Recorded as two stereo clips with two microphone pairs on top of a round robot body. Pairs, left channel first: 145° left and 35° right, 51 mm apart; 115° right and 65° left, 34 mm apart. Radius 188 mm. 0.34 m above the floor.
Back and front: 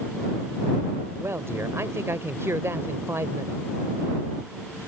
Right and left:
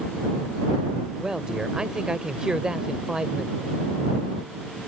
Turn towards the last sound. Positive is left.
turn(degrees=-5)